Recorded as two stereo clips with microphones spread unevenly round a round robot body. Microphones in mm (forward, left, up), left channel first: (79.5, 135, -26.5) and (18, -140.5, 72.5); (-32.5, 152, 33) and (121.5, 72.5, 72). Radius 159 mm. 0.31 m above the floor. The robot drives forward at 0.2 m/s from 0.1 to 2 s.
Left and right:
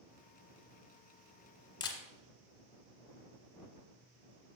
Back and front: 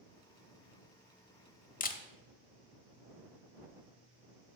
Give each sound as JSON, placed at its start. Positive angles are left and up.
{"t": 1.8, "sound": "a camera shutter", "azimuth_deg": 140, "distance_m": 0.8}